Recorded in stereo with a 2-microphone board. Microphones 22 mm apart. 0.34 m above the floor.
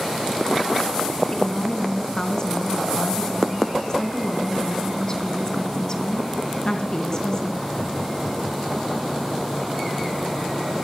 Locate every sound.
1.3 s a woman speaking: 25° left (ahead or behind), 4 m